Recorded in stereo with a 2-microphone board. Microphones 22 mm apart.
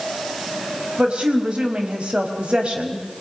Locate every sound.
1.0 s a woman speaking: 55° right (ahead or behind), 4.5 m